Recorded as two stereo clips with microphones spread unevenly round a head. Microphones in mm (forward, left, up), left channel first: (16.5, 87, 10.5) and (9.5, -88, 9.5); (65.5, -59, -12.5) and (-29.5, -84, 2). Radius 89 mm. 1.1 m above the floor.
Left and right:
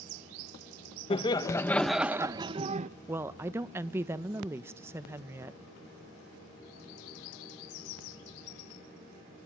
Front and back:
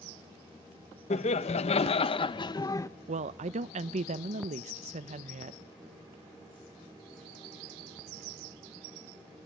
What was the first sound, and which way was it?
Laughter, 25° left.